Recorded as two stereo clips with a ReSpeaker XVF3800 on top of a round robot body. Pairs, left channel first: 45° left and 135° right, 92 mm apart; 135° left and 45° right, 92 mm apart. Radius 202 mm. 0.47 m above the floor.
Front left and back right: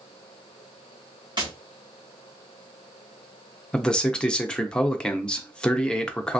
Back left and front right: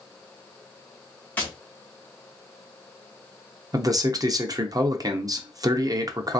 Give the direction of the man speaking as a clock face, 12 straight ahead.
1 o'clock.